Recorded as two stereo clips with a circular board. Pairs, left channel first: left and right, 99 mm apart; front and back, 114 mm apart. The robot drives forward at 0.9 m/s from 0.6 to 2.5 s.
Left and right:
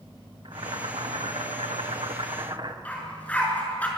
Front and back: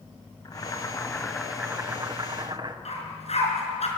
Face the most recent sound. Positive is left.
turn(degrees=15)